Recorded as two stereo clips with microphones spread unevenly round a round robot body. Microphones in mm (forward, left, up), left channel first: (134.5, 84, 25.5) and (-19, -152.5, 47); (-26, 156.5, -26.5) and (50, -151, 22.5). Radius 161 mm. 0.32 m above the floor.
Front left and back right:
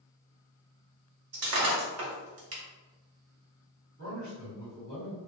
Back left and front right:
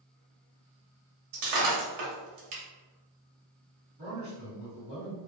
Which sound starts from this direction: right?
Breaking glass, at 1.3 s.